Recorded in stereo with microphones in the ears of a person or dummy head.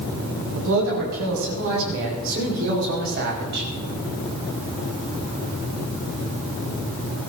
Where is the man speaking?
70° right (ahead or behind), 6 m; by 3.7 s 60° right (ahead or behind), 4.5 m.